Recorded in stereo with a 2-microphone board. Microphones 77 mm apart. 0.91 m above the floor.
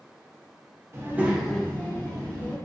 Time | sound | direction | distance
0.9 | a child speaking | 35° right (ahead or behind) | 0.6 m